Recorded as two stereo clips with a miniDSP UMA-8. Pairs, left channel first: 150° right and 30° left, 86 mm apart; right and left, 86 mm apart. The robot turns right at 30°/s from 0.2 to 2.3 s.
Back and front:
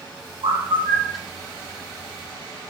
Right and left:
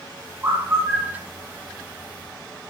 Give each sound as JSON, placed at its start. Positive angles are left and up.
{"t": 0.4, "sound": "a bird", "azimuth_deg": 25, "distance_m": 2.5}